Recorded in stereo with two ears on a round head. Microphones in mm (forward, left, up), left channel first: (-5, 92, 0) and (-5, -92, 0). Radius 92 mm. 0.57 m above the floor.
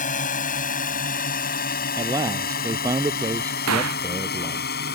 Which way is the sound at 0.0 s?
40° left (ahead or behind).